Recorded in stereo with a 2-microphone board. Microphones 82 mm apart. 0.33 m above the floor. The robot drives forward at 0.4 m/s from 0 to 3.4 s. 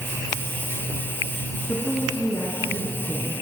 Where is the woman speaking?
30° left (ahead or behind), 3.5 m; by 3.3 s 25° left (ahead or behind), 4 m.